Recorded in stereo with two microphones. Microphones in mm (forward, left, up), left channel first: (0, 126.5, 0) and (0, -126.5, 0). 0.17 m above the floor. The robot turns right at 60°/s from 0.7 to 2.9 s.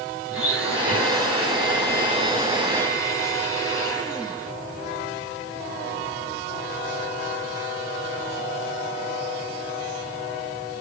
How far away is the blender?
About 3 m.